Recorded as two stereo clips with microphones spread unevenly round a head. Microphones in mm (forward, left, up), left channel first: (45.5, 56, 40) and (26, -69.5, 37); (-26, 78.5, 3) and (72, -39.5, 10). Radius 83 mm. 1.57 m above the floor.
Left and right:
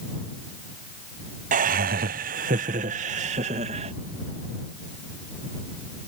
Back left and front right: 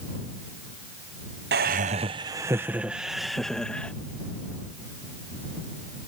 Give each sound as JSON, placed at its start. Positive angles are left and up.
{"t": 1.5, "sound": "laughter", "azimuth_deg": -85}